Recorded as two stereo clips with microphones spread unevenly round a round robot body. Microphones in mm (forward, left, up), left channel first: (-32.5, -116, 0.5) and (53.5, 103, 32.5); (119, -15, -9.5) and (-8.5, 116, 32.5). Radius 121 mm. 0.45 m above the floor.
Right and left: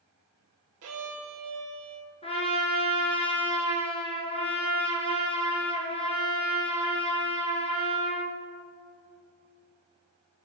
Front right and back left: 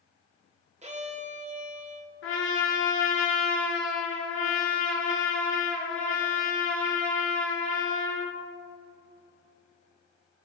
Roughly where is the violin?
Left.